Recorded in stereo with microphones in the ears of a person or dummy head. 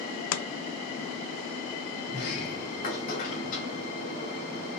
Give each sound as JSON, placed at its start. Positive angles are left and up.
{"t": 0.3, "sound": "chopping", "side_deg": 75, "distance_m": 0.5}
{"t": 2.1, "sound": "a sliding door", "side_deg": 40, "distance_m": 2.5}